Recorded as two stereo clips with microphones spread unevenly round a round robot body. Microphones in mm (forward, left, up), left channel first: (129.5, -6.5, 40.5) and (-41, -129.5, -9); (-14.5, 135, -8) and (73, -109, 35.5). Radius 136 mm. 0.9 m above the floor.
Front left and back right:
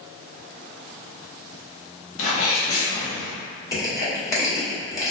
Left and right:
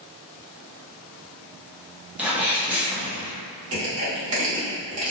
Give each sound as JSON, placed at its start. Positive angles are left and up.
{"t": 2.2, "sound": "a sneeze", "azimuth_deg": 20, "distance_m": 1.2}
{"t": 3.7, "sound": "crushing", "azimuth_deg": -40, "distance_m": 1.5}